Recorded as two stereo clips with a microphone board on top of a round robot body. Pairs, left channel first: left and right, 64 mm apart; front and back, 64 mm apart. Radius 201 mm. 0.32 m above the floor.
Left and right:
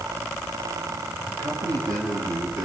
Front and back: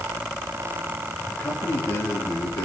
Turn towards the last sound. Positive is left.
turn(degrees=-55)